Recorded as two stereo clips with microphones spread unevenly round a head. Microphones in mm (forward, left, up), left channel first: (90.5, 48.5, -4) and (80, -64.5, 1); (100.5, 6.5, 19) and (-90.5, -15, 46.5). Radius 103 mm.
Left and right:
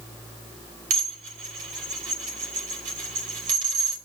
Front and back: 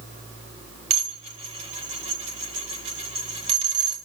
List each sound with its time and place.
0.9 s dishes clattering: 115° right, 2.5 m